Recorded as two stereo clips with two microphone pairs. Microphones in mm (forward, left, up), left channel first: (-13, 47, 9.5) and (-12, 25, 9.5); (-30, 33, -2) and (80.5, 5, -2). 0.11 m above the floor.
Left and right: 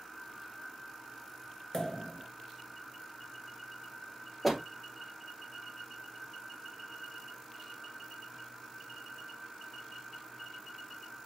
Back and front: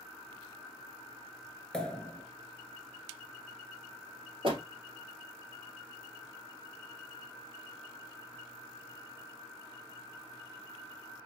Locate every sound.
1.7 s a pop: 85° left, 0.9 m
4.4 s a door slam: 5° left, 1.8 m